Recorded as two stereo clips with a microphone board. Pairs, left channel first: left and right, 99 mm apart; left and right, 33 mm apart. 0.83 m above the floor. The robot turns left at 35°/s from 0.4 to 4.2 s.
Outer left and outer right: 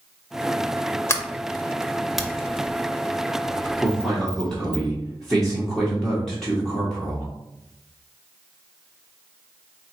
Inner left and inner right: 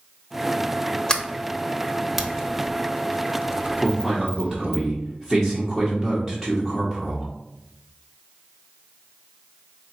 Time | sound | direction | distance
1.1 | a sliding door | 25° left (ahead or behind) | 0.7 m
3.8 | a man speaking | 15° left (ahead or behind) | 1.1 m